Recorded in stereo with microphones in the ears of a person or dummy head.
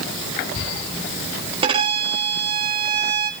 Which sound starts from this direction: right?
A violin, at 1.6 s.